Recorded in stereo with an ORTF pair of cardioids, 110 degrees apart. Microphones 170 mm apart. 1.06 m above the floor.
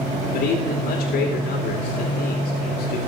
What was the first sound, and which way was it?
A man speaking, 65° left.